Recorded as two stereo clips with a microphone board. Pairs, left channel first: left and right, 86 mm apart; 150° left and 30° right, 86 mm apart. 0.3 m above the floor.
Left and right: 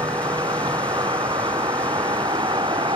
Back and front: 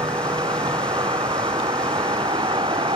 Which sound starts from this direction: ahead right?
A vehicle, at 0.0 s.